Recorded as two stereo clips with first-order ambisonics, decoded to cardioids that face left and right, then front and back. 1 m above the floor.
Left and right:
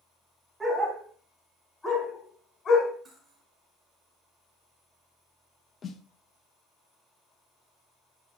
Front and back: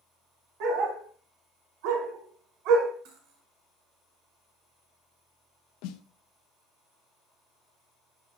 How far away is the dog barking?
About 3 m.